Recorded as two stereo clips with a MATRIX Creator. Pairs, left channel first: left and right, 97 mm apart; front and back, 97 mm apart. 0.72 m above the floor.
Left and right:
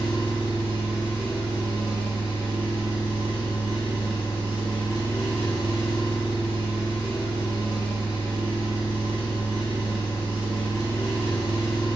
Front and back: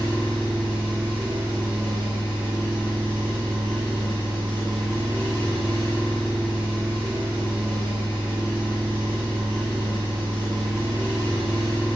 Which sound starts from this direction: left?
An engine running, at 0.0 s.